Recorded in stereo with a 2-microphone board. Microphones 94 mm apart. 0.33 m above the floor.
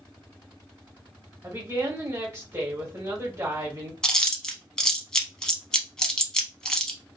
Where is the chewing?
10° left (ahead or behind), 0.6 m.